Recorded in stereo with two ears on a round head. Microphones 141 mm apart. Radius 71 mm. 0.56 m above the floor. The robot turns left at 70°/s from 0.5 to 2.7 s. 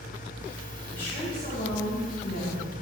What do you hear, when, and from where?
0.9 s a woman speaking: 170° left, 4.5 m; by 2.8 s 45° left, 4.5 m